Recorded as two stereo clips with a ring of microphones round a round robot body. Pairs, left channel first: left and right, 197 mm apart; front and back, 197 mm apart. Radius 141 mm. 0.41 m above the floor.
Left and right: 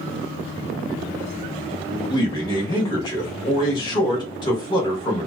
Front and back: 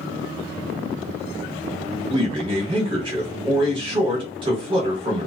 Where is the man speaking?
140° left, 0.8 m.